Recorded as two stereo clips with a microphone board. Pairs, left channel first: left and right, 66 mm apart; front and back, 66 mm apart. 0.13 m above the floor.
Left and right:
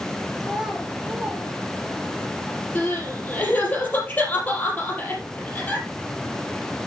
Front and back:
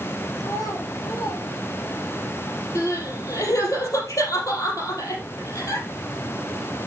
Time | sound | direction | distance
0.4 | a child speaking | 5° right | 2.5 m
2.8 | crying | 25° left | 3.5 m